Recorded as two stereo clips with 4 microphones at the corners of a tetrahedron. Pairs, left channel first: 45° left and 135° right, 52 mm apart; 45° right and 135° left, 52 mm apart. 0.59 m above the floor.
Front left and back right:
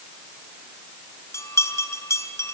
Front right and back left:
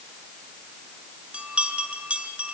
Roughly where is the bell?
Left.